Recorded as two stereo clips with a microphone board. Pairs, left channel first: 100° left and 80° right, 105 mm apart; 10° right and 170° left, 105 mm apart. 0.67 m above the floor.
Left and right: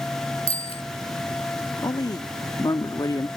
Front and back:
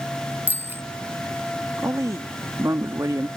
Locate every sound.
0.5 s a bicycle bell: 100° left
1.8 s a woman speaking: 125° left